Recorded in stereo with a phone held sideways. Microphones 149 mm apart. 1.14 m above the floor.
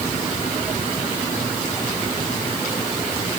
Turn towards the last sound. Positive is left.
No sound to turn to.